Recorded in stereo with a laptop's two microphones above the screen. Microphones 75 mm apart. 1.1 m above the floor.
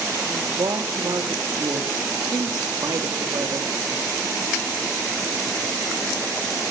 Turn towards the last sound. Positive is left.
turn(degrees=-70)  # may be behind; listen again after turning